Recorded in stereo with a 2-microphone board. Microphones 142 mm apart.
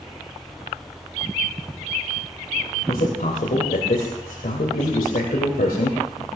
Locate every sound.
2.9 s a man speaking: 80° left, 2.5 m